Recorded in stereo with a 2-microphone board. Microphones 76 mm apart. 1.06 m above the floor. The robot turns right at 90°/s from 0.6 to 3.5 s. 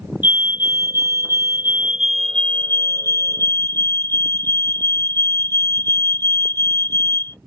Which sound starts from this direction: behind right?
A fire alarm, at 0.2 s.